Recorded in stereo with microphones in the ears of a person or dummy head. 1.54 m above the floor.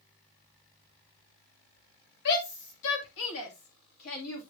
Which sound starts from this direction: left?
A shout, at 2.2 s.